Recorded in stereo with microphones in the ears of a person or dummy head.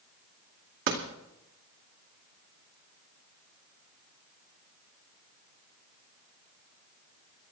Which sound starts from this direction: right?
A door slam, at 0.9 s.